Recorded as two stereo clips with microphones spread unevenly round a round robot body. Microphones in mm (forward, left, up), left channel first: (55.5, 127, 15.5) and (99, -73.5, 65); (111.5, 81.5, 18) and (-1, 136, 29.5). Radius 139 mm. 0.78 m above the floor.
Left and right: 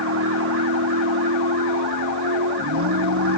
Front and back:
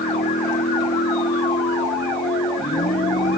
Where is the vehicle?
70° right; by 3.4 s 75° right.